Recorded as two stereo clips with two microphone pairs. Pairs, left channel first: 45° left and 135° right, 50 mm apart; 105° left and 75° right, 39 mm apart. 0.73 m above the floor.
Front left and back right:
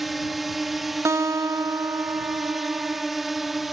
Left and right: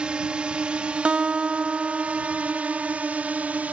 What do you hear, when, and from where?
0.0 s a drone: 50° right
1.1 s a guitar: 130° right